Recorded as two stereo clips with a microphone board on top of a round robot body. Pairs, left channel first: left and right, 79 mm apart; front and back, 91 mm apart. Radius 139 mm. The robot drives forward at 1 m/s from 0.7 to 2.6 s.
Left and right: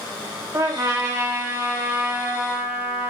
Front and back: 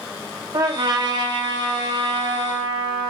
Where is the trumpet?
135° right, 3.5 m; by 3.1 s 150° right, 5 m.